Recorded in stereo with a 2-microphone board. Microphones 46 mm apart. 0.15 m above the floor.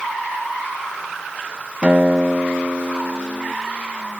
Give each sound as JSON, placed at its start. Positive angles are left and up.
{"t": 1.8, "sound": "a guitar", "side_deg": -30}